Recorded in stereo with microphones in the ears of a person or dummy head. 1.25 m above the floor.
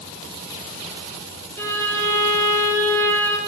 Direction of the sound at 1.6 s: 10° left (ahead or behind).